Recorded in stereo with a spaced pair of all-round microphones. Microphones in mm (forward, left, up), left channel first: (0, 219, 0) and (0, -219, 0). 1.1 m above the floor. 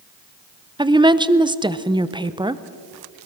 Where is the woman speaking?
10° right (ahead or behind), 0.6 m.